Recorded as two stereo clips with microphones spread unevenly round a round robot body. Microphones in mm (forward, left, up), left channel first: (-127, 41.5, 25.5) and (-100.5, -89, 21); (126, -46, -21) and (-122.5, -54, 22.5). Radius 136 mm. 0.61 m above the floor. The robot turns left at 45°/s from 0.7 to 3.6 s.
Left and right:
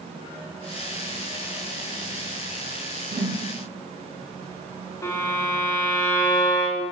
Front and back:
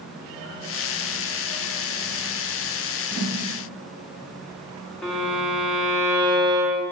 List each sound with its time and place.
3.1 s a whoosh: 110° right, 1.1 m; by 3.4 s 125° right, 1.1 m
5.0 s a violin: 60° left, 0.5 m